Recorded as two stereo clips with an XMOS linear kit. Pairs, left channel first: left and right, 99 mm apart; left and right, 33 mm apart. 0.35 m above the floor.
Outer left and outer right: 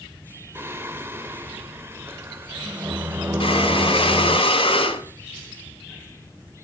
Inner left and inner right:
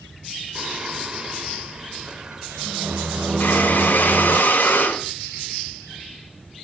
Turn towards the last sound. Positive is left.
turn(degrees=70)  # may be behind; listen again after turning